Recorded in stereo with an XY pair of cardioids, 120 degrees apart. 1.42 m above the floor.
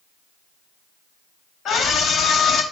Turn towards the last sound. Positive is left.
turn(degrees=55)